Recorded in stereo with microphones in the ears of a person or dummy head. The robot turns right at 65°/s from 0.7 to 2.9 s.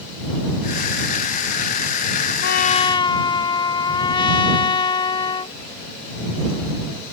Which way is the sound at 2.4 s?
125° left.